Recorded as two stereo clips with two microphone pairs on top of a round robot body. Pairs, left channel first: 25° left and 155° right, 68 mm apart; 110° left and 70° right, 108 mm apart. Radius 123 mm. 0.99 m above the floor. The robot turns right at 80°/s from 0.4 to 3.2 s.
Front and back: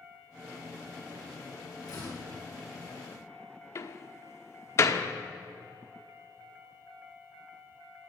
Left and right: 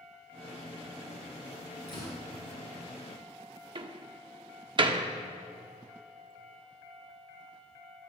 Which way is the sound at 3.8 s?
20° right.